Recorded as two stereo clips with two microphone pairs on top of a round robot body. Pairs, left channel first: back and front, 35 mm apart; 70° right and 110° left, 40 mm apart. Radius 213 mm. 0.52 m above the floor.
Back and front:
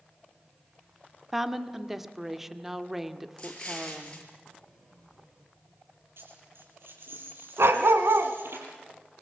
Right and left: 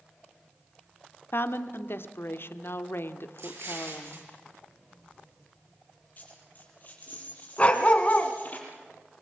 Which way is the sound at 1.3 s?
80° right.